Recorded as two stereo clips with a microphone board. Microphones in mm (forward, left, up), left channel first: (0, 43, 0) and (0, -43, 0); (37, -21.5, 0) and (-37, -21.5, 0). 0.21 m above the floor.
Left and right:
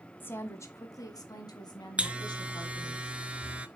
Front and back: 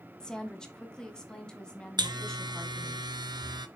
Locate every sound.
0.2 s a woman speaking: 65° left, 1.0 m; by 3.0 s 80° left, 2 m
2.0 s a buzzer: 165° right, 0.6 m